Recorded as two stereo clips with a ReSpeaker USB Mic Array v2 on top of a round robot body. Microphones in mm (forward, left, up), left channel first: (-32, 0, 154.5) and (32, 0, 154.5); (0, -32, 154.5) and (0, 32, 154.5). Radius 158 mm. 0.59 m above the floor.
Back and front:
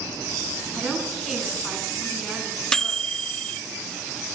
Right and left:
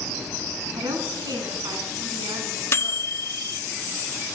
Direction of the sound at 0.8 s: 90° left.